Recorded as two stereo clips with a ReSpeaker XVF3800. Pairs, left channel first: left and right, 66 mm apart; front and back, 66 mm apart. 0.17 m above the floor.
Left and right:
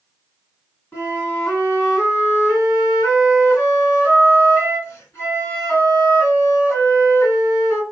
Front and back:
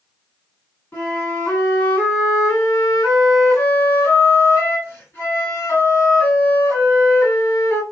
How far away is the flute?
About 2.0 m.